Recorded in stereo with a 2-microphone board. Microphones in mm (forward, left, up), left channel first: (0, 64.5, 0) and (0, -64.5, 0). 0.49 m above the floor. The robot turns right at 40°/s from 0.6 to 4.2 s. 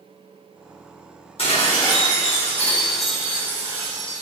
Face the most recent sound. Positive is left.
turn(degrees=-135)